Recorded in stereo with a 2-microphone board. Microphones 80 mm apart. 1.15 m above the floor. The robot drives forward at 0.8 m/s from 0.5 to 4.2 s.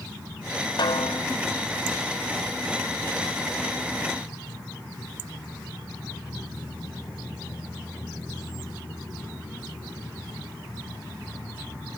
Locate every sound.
0.8 s a snare drum: 70° left (ahead or behind); by 1.3 s 75° left (ahead or behind)